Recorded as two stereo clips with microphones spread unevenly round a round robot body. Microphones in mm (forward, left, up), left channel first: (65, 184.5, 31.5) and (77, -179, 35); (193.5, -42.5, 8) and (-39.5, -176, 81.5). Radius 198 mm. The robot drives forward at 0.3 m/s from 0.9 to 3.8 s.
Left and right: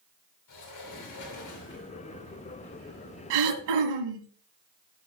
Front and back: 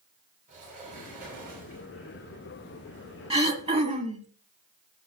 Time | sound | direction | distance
0.5 | a sliding door | 135° left | 3 m
3.3 | throat clearing | 85° right | 2.5 m